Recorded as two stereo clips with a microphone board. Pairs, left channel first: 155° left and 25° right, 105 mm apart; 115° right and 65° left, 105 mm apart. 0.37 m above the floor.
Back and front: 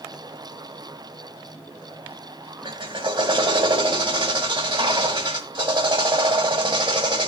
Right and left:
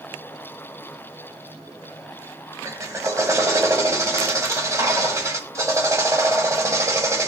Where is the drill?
10° left, 2.0 m.